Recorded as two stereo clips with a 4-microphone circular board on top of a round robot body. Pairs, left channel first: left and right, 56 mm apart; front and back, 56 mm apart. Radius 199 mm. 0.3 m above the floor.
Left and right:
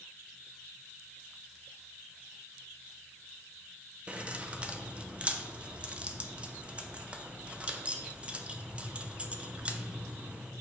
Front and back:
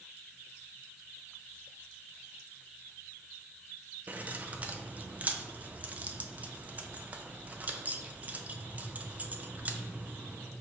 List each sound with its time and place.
4.1 s keys jangling: 145° right, 0.6 m